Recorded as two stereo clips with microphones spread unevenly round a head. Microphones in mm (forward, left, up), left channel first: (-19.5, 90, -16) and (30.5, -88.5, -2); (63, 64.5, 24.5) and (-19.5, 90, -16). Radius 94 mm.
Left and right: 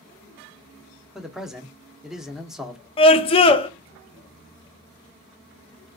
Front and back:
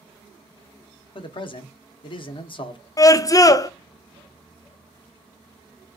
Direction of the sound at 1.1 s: 15° left.